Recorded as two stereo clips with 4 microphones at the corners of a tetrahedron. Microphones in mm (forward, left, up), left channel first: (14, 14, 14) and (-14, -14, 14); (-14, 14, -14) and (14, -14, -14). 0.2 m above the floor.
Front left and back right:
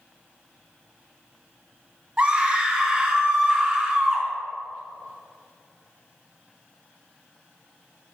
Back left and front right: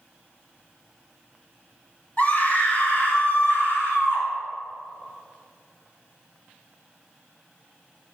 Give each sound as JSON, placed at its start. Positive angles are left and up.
{"t": 2.2, "sound": "a scream", "azimuth_deg": 170, "distance_m": 2.0}